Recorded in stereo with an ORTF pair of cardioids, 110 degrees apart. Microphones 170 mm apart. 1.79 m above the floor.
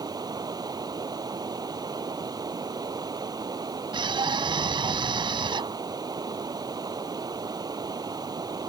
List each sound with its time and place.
0.0 s running water: 25° right
3.9 s a scream: 30° right